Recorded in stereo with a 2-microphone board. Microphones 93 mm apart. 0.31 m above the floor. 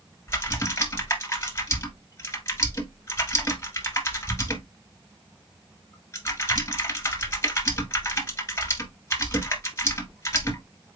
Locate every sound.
0.3 s typing on a keyboard: 30° left (ahead or behind), 1.3 m